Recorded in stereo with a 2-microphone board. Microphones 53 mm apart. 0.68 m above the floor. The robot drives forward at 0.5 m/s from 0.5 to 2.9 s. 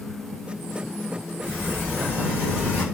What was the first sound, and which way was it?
A sliding door, 25° left (ahead or behind).